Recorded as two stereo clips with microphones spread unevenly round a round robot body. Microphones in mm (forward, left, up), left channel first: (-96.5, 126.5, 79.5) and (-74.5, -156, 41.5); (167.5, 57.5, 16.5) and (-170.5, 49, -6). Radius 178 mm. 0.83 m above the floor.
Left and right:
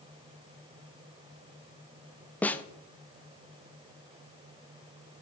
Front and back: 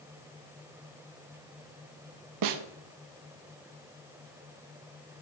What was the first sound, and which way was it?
A snare drum, 175° right.